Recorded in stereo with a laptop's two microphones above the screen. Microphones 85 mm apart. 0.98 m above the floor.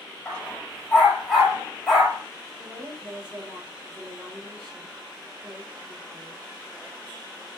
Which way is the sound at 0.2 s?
5° left (ahead or behind).